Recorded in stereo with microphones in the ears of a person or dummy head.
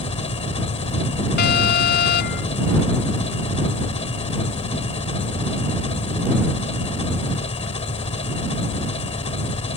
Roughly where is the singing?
I don't hear singing.